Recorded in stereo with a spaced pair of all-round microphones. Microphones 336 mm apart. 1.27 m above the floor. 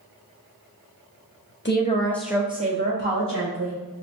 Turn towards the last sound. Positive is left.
turn(degrees=-45)  # may be behind; listen again after turning